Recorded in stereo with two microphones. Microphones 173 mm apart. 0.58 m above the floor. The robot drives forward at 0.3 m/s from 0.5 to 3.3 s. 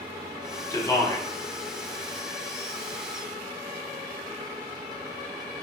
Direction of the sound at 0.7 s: 20° left (ahead or behind).